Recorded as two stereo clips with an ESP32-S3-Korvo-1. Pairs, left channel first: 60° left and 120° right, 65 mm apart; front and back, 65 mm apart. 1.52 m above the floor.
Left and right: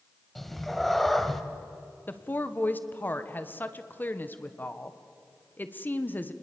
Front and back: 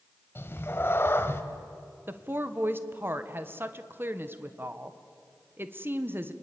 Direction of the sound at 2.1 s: 125° left.